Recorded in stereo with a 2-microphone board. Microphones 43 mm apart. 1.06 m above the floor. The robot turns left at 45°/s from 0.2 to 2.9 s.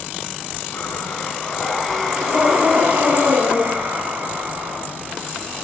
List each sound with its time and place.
0.7 s breathing: 55° left, 3.5 m; by 4.8 s 40° right, 3.5 m